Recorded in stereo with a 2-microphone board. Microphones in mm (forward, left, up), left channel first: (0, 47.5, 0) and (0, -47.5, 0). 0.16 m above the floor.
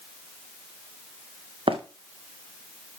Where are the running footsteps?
65° right (ahead or behind), 2.0 m.